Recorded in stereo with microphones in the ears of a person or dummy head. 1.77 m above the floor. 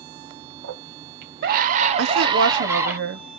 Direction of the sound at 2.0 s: 65° right (ahead or behind).